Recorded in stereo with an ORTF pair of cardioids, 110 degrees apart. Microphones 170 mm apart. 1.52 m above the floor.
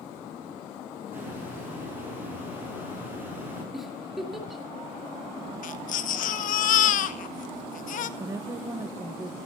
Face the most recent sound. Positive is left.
turn(degrees=-20)